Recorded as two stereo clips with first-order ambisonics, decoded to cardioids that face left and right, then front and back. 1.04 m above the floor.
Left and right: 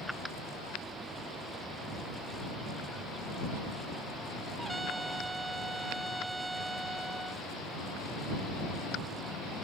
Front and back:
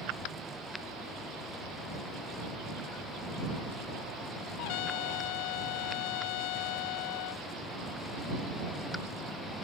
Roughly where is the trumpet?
Ahead.